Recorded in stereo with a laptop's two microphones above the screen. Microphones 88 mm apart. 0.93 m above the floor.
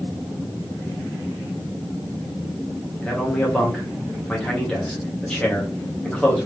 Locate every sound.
3.0 s a man speaking: 10° left (ahead or behind), 1.1 m